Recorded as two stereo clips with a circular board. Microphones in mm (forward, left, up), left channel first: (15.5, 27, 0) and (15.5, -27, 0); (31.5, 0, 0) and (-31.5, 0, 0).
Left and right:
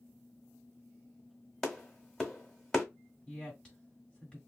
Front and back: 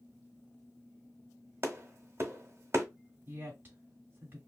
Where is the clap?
170° left, 1.2 m.